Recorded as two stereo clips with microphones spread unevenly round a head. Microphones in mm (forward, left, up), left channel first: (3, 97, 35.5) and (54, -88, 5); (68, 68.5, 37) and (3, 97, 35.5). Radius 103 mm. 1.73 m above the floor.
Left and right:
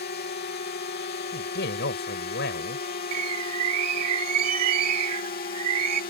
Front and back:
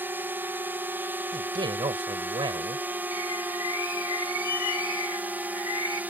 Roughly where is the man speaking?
Behind left.